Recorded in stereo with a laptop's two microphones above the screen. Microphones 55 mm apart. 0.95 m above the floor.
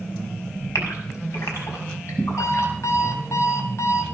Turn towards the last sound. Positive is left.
turn(degrees=65)  # may be behind; listen again after turning